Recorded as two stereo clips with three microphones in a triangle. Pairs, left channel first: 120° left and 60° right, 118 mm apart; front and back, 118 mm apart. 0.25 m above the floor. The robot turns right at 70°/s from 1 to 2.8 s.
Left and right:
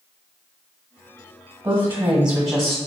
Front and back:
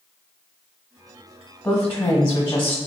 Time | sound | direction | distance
1.6 | a woman speaking | 45° right | 1.3 m